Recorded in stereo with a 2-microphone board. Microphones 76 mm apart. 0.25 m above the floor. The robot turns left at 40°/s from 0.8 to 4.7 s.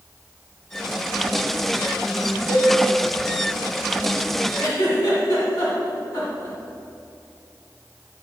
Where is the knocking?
I don't hear knocking.